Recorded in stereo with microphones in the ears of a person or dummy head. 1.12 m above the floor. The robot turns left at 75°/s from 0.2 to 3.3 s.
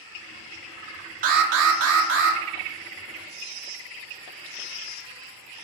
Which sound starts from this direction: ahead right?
An alarm, at 1.2 s.